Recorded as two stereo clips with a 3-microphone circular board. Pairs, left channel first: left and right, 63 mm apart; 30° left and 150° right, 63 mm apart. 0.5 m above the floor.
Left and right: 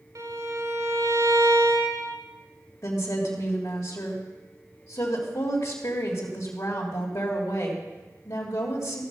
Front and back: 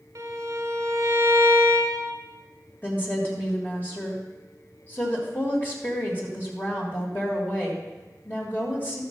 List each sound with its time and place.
0.1 s a violin: 110° right, 1.8 m
2.8 s a woman speaking: 85° left, 2 m